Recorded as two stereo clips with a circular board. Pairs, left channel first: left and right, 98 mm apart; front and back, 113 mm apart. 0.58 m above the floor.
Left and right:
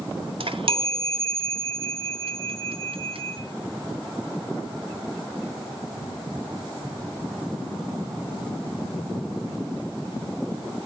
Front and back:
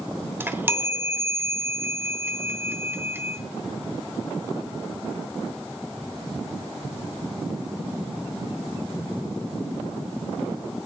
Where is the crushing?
I don't hear crushing.